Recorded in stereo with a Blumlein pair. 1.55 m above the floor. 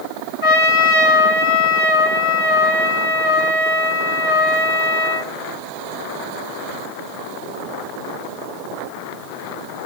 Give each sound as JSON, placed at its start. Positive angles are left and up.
{"t": 0.4, "sound": "a trumpet", "azimuth_deg": 35, "distance_m": 3.5}